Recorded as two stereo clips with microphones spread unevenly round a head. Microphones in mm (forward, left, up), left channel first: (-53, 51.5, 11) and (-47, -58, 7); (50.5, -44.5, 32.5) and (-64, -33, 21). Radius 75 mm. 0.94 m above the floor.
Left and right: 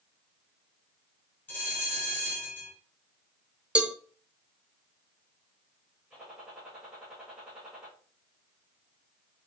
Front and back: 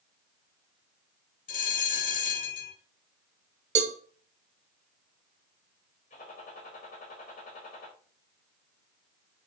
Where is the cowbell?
170° right, 1.1 m.